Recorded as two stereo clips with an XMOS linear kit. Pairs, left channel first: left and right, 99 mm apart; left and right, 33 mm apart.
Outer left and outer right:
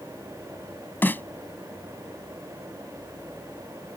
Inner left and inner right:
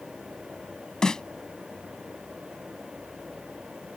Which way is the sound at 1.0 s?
20° left (ahead or behind).